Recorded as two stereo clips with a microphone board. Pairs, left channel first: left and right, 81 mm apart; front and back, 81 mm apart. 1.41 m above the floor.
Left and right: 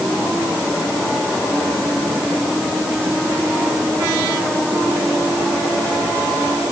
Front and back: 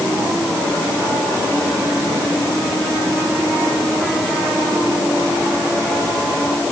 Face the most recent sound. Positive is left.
No sound to turn to.